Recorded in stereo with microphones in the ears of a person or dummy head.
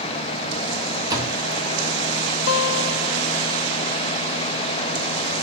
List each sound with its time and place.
1.1 s a door slam: 15° right (ahead or behind), 1.9 m
2.5 s a guitar: 60° left (ahead or behind), 0.5 m